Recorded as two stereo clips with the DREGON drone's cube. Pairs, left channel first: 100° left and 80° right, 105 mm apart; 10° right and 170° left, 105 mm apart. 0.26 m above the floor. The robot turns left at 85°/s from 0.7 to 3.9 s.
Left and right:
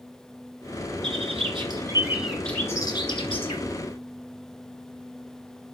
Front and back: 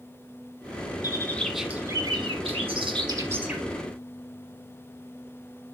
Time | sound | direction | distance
1.0 | a bird | 60° right | 1.8 m